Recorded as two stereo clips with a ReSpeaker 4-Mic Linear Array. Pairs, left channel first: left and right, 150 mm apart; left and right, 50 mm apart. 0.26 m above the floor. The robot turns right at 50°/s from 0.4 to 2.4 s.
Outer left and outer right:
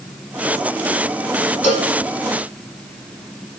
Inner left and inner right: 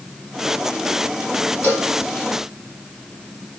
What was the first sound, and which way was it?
A cowbell, 45° left (ahead or behind).